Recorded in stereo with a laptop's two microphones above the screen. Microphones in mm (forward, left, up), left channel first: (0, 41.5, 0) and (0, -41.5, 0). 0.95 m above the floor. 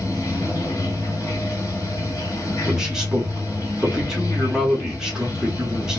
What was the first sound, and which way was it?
Running water, 50° left (ahead or behind).